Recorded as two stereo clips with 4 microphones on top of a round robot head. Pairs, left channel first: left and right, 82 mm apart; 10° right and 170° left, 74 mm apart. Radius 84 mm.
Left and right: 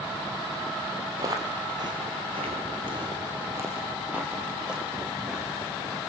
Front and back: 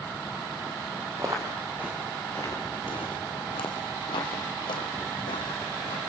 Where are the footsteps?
135° right, 2 m; by 6.0 s straight ahead, 4.5 m.